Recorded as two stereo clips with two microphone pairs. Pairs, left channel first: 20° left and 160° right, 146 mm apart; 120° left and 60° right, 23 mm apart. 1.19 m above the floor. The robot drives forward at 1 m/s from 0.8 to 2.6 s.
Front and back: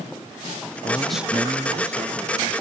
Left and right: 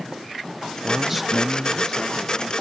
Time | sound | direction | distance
0.8 | a man speaking | 20° right | 0.6 m